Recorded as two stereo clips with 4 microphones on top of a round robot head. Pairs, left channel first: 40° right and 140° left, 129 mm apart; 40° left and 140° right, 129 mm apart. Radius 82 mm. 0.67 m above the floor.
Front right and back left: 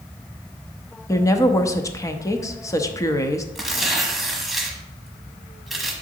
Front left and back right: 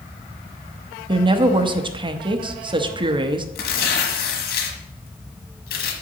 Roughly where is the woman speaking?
Right.